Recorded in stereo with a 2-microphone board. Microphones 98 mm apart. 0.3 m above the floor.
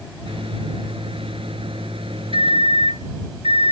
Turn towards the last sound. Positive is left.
turn(degrees=-65)  # may be behind; listen again after turning